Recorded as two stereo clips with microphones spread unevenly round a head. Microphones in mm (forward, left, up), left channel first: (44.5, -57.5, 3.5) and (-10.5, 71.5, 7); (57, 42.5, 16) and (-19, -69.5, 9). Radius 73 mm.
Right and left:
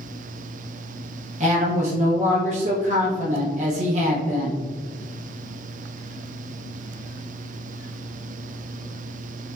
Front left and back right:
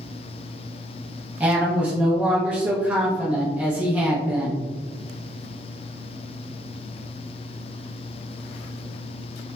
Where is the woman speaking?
155° left, 0.8 m.